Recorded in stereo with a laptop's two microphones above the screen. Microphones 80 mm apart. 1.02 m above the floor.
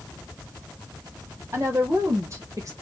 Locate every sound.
1.5 s a woman speaking: 35° right (ahead or behind), 1.5 m; by 2.7 s 45° right (ahead or behind), 1.0 m